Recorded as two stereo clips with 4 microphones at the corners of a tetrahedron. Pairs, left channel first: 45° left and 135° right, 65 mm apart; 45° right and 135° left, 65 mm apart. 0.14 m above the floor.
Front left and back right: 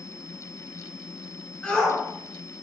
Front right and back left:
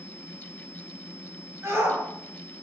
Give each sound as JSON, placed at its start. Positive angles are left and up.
{"t": 1.6, "sound": "a shout", "azimuth_deg": 115, "distance_m": 1.4}